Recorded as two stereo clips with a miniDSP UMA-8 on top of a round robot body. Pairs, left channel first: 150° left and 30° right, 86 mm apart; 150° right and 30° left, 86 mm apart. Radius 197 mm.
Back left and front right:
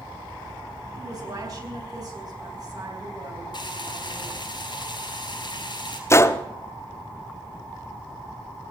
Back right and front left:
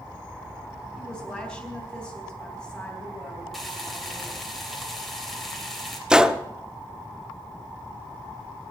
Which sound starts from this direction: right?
A woman speaking, at 1.0 s.